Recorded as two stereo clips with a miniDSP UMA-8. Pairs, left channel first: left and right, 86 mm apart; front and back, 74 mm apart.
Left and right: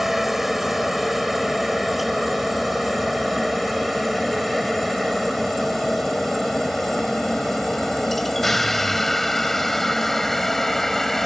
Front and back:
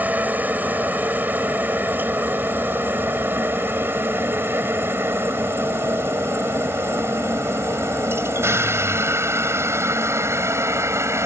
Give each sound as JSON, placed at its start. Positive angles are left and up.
{"t": 0.0, "sound": "a helicopter", "azimuth_deg": -175}